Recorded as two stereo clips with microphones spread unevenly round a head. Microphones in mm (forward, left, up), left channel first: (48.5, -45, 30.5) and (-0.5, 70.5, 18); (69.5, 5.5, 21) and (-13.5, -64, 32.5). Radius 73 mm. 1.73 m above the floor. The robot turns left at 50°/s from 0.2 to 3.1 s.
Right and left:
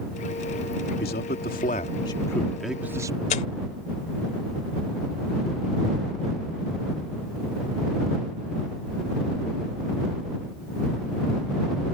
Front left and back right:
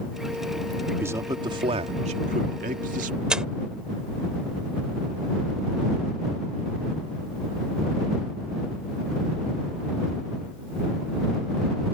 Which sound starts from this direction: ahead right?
Tearing paper, at 3.3 s.